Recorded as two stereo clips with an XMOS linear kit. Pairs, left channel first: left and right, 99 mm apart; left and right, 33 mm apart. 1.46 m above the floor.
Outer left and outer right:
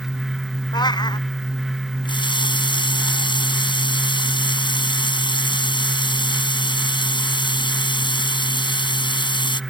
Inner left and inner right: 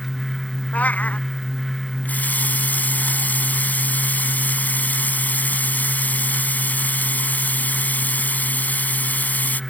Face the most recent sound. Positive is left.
turn(degrees=55)  # may be behind; listen again after turning